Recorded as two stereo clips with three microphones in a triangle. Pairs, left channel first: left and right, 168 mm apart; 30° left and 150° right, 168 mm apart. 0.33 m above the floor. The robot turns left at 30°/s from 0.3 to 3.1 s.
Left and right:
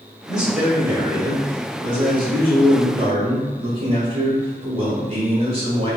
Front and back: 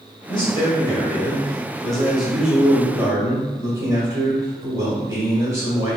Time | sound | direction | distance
0.3 | a man speaking | 5° right | 1.4 m